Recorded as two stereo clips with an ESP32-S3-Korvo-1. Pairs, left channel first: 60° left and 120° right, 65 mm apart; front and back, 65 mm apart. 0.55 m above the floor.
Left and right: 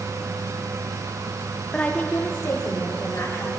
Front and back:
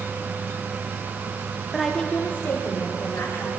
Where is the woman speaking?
120° left, 0.7 m; by 3.5 s 25° left, 2.5 m.